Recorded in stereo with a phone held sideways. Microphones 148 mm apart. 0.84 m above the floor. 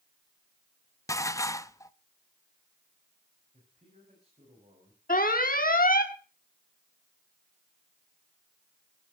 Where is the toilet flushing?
No toilet flushing in this recording.